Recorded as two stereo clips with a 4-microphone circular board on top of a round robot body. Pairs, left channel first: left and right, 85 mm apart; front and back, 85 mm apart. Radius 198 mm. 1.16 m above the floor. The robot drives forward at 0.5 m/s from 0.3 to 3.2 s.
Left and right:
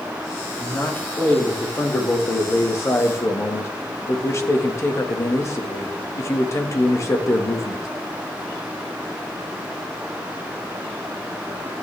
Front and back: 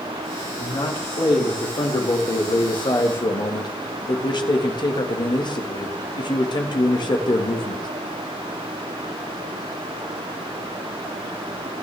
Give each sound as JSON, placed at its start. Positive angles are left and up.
{"t": 0.6, "sound": "a man speaking", "azimuth_deg": 20, "distance_m": 3.0}